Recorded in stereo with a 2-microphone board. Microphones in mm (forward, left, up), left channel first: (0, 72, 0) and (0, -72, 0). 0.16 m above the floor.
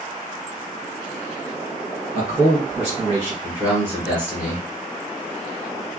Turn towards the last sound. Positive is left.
turn(degrees=-15)  # may be behind; listen again after turning